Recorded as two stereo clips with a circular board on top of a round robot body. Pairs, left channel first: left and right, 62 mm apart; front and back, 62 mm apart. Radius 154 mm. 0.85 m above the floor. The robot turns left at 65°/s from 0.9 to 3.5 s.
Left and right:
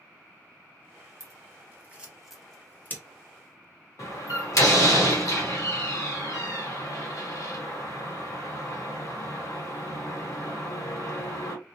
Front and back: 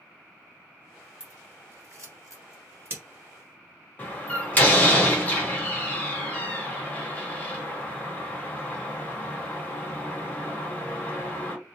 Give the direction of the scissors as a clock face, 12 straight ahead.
4 o'clock.